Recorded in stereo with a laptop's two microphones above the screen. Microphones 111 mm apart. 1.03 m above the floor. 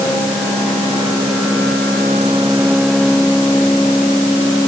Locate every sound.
Only background noise.